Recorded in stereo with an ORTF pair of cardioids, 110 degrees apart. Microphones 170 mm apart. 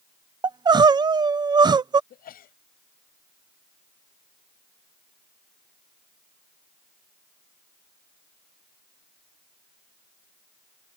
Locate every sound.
0.4 s crying: 25° right
2.1 s a sneeze: 55° left